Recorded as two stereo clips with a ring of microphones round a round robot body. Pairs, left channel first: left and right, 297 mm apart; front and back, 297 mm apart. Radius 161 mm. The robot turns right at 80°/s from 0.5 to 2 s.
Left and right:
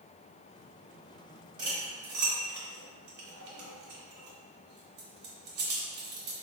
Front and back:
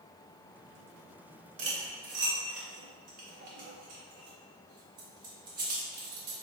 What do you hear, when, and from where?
1.6 s cutlery clinking: 160° right, 0.5 m; by 6.3 s 130° right, 0.5 m